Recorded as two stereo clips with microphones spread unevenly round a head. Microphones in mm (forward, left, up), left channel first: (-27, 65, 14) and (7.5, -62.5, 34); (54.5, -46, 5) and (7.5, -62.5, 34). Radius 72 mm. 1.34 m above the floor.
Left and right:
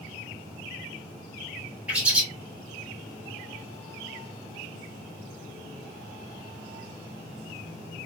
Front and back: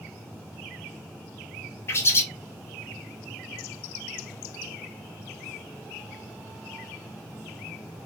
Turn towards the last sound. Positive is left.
turn(degrees=-30)